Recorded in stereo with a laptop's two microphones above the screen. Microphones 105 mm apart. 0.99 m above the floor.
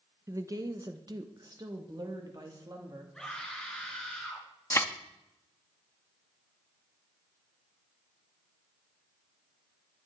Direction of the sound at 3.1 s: 5° left (ahead or behind).